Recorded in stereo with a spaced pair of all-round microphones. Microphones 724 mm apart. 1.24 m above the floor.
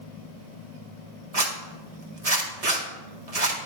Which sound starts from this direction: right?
A zipper, at 1.3 s.